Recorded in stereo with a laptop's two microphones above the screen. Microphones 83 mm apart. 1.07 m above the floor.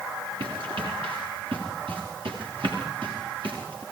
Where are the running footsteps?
75° right (ahead or behind), 8.5 m.